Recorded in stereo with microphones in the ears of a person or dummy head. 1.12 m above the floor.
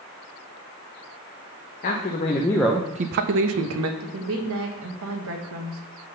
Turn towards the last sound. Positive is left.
turn(degrees=-70)  # may be behind; listen again after turning